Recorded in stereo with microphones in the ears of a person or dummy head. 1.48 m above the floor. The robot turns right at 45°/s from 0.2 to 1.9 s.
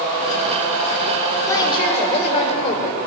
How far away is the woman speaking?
About 5 m.